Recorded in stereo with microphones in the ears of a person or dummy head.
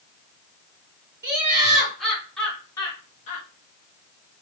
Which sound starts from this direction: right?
Laughter, at 1.2 s.